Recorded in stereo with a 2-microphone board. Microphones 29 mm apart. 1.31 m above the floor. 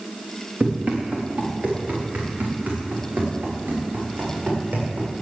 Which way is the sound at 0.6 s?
65° right (ahead or behind).